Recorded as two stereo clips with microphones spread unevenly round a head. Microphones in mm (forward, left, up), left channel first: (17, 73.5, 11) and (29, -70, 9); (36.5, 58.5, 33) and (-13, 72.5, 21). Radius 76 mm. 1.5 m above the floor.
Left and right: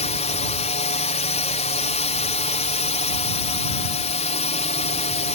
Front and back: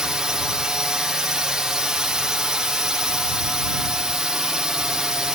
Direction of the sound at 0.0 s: 105° left.